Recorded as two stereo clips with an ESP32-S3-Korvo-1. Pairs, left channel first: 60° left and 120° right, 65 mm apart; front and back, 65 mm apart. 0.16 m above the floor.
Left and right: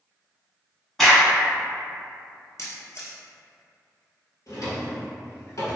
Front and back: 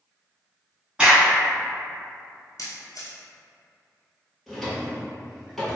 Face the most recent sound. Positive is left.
turn(degrees=90)